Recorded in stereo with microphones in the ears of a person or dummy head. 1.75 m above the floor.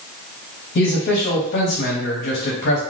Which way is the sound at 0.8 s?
45° left (ahead or behind).